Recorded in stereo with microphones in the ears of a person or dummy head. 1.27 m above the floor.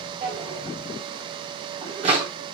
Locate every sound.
0.2 s a drawer: 30° right (ahead or behind), 2.5 m